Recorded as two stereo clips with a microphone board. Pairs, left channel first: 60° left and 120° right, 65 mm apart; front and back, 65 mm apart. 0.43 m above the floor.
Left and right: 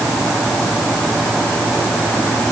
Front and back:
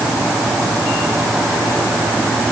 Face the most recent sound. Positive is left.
No sound to turn to.